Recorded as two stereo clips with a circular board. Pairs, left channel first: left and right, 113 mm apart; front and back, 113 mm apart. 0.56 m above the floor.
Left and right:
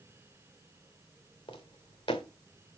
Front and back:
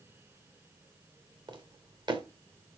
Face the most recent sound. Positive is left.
turn(degrees=130)